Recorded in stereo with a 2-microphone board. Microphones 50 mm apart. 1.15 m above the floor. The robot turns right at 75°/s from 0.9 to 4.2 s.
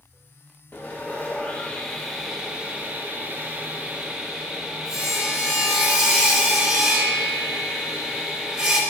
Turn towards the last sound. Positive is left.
turn(degrees=-20)